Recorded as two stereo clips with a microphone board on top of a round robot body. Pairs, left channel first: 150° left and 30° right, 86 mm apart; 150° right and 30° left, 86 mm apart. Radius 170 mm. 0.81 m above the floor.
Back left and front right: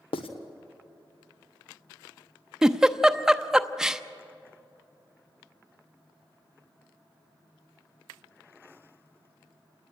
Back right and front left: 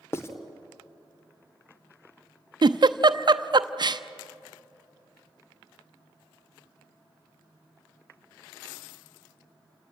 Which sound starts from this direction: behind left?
Writing, at 0.1 s.